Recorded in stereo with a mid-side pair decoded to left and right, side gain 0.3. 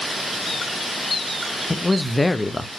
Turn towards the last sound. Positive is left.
turn(degrees=25)